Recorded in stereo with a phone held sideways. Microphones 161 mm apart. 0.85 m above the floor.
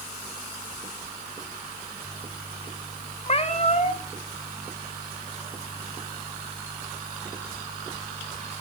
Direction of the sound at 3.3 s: 40° left (ahead or behind).